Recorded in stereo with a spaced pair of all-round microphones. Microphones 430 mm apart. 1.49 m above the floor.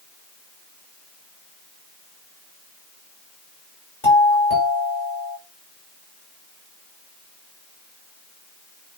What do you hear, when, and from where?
4.0 s a doorbell: 85° left, 6 m